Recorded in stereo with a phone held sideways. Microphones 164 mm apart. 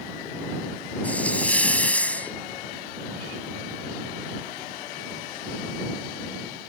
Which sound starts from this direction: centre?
A hiss, at 1.0 s.